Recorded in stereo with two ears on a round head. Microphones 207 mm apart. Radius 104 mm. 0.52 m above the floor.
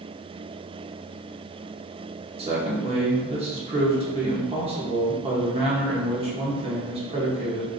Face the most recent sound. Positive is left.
turn(degrees=-25)  # may be behind; listen again after turning